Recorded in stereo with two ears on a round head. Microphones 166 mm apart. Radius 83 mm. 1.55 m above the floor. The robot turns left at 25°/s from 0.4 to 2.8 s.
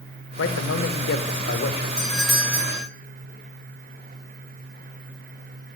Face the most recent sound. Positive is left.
turn(degrees=-15)  # may be behind; listen again after turning